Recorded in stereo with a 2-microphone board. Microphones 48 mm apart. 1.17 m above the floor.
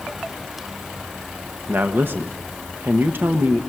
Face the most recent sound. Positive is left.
turn(degrees=-50)  # may be behind; listen again after turning